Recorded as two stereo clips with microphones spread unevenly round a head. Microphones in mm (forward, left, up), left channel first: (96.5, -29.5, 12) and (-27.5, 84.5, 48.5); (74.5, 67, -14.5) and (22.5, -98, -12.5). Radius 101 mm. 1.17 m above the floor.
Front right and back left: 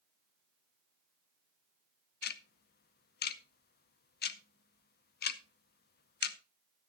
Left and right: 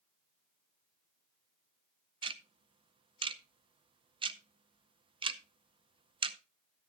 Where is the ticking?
45° right, 0.7 m.